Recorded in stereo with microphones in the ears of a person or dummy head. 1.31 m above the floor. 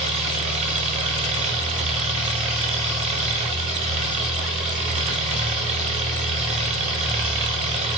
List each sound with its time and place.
0.0 s an engine running: 40° right (ahead or behind), 0.7 m